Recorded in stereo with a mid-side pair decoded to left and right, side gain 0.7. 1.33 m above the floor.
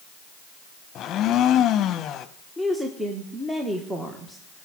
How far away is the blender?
About 0.9 m.